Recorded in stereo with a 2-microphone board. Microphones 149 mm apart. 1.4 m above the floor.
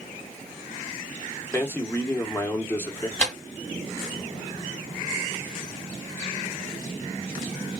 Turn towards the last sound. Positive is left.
turn(degrees=5)  # may be behind; listen again after turning